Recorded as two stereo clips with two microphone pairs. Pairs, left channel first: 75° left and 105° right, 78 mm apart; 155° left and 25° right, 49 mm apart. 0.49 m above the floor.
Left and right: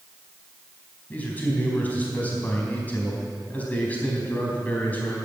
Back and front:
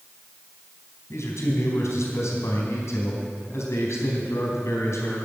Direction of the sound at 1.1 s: 145° left.